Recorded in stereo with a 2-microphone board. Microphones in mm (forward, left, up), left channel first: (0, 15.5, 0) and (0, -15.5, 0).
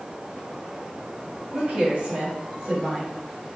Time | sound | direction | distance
1.5 | a woman speaking | 45° right (ahead or behind) | 1.9 m